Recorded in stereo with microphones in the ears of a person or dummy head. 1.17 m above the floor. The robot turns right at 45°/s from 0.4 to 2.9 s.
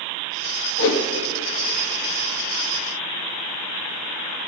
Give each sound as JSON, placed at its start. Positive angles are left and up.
{"t": 0.8, "sound": "a whoosh", "side_deg": 65, "distance_m": 1.5}